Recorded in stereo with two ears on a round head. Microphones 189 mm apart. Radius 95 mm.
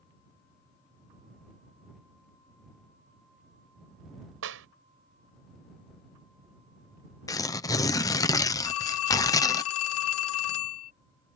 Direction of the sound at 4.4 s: 65° right (ahead or behind).